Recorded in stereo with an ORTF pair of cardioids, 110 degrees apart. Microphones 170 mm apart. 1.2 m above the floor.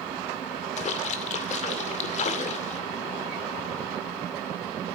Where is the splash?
45° left, 2 m.